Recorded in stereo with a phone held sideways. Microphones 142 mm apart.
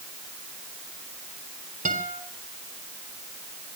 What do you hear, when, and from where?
1.9 s a guitar: 70° right (ahead or behind), 3.5 m